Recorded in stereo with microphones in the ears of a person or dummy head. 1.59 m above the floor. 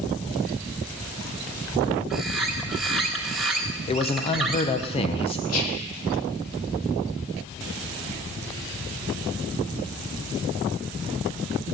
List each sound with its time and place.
2.1 s a bird: centre (ahead or behind), 1.6 m
3.9 s a man speaking: 30° left (ahead or behind), 1.1 m
5.5 s whispering: 85° left, 2.5 m